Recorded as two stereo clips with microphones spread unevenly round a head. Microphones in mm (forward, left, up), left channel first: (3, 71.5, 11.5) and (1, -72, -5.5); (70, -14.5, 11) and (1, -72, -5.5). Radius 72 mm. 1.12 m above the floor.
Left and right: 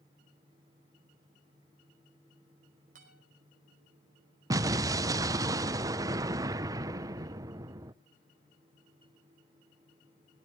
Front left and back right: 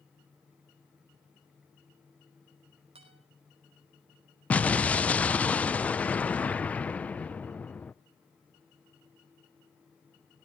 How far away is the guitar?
About 5.5 m.